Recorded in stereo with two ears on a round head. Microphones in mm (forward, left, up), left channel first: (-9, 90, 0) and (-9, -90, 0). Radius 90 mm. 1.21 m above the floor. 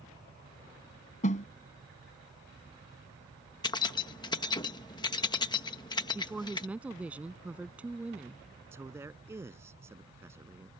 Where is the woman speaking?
5° right (ahead or behind).